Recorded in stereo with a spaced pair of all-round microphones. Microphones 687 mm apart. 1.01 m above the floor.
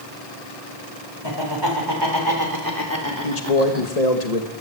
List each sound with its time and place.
1.2 s laughter: 40° right (ahead or behind), 4.5 m; by 3.9 s 15° right (ahead or behind), 2.5 m
3.2 s a man speaking: 65° left (ahead or behind), 1.7 m